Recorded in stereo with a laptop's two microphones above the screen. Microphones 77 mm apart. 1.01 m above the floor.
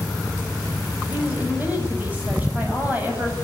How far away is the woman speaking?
About 6.5 m.